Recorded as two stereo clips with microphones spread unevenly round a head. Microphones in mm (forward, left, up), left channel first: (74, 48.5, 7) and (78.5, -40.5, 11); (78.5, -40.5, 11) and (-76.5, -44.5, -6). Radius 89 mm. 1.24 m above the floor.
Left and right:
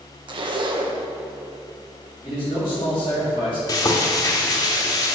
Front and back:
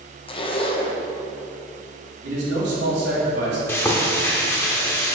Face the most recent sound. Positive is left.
turn(degrees=65)